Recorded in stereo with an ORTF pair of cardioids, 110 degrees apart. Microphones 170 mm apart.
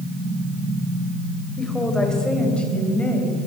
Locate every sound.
1.6 s a woman speaking: straight ahead, 5.5 m; by 3.5 s 10° left, 6.5 m